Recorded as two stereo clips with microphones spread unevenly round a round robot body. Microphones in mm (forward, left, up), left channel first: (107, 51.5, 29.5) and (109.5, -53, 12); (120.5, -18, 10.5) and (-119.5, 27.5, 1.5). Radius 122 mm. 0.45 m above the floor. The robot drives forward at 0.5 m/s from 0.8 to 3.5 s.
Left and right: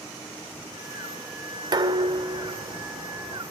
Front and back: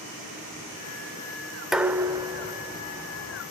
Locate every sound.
1.7 s dishes clattering: 105° right, 1.0 m; by 3.4 s 145° right, 1.4 m